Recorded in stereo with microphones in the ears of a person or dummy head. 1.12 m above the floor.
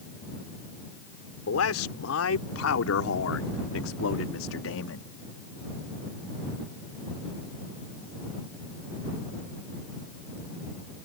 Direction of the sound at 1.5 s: 75° left (ahead or behind).